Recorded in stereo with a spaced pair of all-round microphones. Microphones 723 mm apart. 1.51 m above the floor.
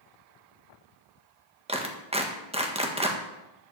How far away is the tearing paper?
I don't hear tearing paper.